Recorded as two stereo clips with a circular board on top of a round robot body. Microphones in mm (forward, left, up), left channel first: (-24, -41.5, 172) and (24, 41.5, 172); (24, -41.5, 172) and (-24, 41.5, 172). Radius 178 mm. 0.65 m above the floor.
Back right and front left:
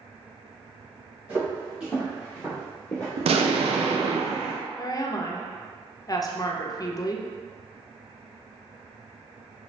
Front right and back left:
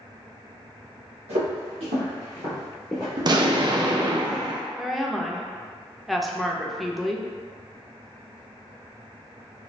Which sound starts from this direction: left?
An explosion, at 3.2 s.